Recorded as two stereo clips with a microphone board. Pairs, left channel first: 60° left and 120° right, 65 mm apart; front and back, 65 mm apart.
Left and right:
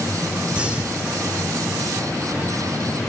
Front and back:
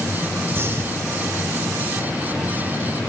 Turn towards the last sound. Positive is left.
turn(degrees=180)